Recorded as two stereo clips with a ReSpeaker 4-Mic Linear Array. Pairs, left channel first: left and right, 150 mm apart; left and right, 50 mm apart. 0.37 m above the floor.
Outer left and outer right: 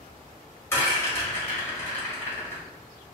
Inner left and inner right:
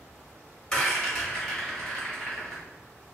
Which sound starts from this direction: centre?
A rattle, at 0.7 s.